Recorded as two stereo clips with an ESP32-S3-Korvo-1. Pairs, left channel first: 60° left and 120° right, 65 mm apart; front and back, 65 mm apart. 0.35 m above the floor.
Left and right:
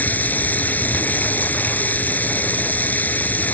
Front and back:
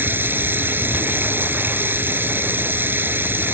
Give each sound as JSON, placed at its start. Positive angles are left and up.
{"t": 0.0, "sound": "running water", "azimuth_deg": 125}